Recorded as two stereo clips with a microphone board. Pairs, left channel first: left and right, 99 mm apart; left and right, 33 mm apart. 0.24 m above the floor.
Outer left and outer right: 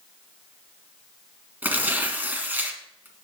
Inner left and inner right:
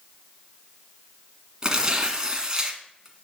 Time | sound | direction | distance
1.6 | tearing paper | 20° right (ahead or behind) | 1.7 m